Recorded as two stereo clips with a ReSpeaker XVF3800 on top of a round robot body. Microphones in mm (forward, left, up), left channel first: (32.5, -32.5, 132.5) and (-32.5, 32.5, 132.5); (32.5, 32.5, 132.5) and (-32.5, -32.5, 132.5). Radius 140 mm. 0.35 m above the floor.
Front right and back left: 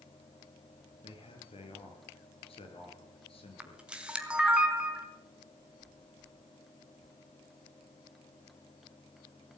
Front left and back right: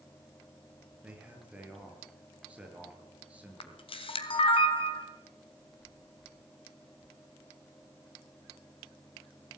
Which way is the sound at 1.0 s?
60° right.